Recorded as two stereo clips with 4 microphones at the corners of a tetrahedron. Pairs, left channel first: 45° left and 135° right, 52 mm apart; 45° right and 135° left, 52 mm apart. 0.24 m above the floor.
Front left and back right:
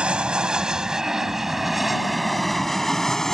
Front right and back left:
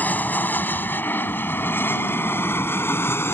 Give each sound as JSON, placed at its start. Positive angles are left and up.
{"t": 0.0, "sound": "an aircraft", "azimuth_deg": -75}